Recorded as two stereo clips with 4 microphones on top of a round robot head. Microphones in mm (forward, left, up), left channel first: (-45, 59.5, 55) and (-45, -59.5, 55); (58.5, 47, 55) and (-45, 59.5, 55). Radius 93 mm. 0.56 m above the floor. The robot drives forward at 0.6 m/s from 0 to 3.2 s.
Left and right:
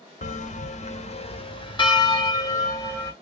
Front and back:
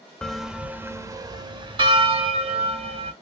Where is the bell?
75° left, 0.8 m; by 3.1 s 155° left, 1.7 m.